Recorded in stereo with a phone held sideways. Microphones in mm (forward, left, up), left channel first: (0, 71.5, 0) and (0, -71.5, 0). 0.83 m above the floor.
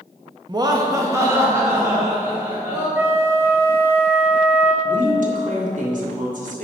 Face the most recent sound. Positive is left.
turn(degrees=-65)  # may be behind; listen again after turning